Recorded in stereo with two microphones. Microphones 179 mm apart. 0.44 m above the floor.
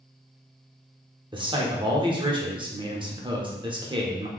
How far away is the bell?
I don't hear a bell.